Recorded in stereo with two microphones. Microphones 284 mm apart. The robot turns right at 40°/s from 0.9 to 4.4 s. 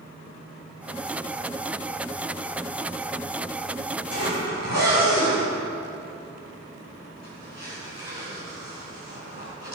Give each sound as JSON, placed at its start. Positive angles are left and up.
{"t": 4.1, "sound": "a zipper", "side_deg": 55, "distance_m": 5.5}